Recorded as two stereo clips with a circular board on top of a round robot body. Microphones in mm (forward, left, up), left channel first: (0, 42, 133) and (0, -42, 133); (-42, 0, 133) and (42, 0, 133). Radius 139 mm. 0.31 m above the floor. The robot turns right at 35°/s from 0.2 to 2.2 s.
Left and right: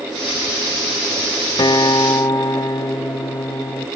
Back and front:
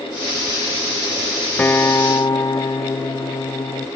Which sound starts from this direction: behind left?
A guitar, at 1.6 s.